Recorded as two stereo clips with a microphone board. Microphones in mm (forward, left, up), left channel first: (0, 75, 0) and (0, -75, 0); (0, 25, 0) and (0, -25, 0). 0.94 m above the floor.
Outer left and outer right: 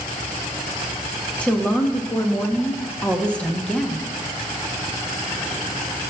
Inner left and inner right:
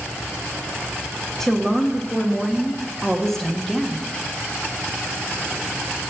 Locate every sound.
1.4 s a woman speaking: 10° left (ahead or behind), 1.0 m